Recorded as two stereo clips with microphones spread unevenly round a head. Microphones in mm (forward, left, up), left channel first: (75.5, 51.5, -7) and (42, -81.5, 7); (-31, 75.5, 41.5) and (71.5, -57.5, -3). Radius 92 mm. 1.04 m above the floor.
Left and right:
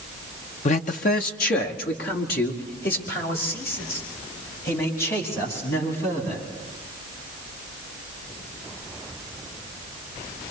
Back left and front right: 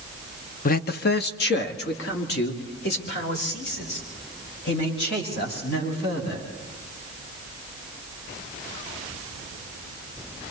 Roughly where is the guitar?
No guitar in this recording.